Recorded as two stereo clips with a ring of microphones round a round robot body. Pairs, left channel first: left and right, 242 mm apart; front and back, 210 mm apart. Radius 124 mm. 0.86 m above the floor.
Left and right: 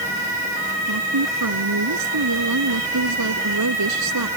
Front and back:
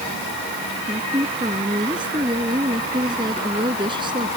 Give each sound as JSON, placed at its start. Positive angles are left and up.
{"t": 0.9, "sound": "a woman speaking", "azimuth_deg": -105}